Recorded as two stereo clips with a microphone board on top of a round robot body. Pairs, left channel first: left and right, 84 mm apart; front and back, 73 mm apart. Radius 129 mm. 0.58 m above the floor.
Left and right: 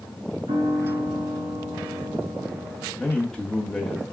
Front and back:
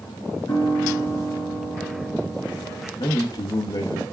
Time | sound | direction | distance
0.5 | a piano | 55° right | 2.5 m
3.0 | a man speaking | 5° left | 1.0 m